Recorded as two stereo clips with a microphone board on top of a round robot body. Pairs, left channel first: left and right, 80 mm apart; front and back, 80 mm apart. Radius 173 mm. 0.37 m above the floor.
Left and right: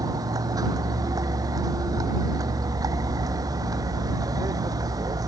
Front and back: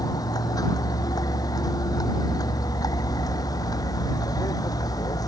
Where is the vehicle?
45° right.